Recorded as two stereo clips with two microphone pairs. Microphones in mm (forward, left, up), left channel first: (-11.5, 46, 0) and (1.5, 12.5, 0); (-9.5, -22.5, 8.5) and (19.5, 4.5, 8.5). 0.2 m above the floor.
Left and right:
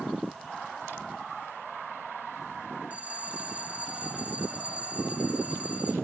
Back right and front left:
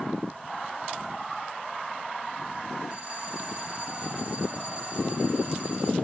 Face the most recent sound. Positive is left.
turn(degrees=-15)